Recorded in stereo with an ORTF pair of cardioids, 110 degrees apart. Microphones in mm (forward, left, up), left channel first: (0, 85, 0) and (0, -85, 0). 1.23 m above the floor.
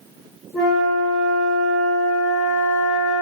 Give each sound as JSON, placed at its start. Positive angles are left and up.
{"t": 0.5, "sound": "a flute", "azimuth_deg": 20, "distance_m": 1.5}